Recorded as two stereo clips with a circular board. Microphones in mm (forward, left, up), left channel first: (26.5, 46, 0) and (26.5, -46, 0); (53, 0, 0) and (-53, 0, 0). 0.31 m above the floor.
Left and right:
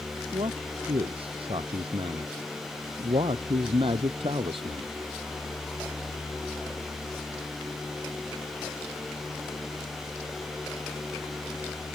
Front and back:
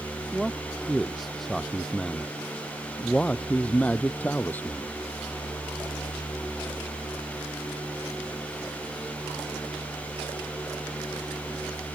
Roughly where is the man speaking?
Right.